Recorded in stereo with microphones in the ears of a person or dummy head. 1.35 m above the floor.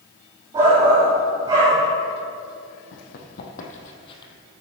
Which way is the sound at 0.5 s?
30° right (ahead or behind).